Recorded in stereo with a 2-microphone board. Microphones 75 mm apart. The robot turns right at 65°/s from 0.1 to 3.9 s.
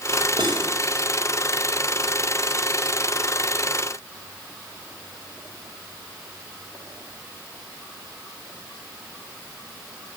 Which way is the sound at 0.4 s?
80° right.